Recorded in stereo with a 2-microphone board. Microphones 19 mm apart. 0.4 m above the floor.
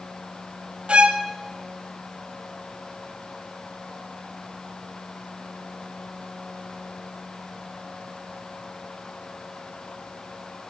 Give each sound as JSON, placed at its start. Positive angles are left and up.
{"t": 0.9, "sound": "a violin", "side_deg": -70, "distance_m": 1.2}